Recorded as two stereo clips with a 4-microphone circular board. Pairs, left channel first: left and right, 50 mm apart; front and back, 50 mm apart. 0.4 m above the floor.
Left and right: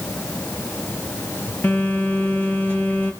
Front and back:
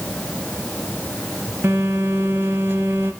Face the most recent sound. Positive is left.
turn(degrees=140)